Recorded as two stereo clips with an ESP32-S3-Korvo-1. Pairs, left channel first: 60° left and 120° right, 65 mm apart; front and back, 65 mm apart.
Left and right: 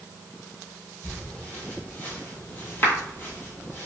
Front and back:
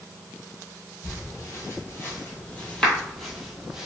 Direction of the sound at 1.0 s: 5° right.